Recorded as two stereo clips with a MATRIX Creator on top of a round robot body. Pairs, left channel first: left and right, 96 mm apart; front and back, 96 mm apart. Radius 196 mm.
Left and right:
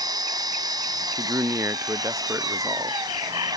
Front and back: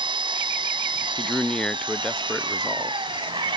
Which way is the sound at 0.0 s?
140° right.